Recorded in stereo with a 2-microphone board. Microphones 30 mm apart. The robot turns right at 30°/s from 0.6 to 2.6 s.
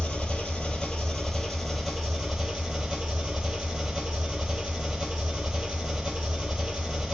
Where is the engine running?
145° left, 1.1 m; by 7.2 s 155° right, 1.1 m.